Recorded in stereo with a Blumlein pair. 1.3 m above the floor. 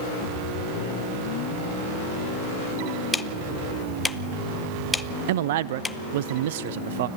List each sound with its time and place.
3.1 s ticking: 10° left, 0.7 m
5.3 s a man speaking: 55° right, 0.6 m